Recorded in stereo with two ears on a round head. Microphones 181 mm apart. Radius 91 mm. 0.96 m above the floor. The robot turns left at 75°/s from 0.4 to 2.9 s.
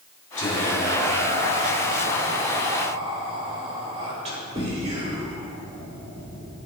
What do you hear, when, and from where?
0.4 s whispering: 40° left, 2.5 m; by 6.5 s 150° right, 2.5 m